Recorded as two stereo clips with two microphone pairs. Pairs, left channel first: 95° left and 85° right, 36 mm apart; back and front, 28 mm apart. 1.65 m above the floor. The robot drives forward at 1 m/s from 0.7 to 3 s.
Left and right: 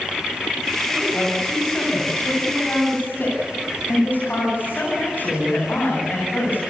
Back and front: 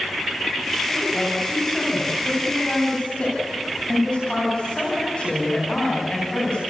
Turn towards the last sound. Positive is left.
turn(degrees=125)